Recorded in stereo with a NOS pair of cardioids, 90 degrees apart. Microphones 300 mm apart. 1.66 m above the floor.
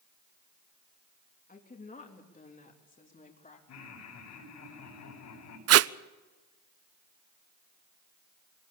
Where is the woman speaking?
30° left, 3.5 m; by 3.6 s 25° left, 4.5 m.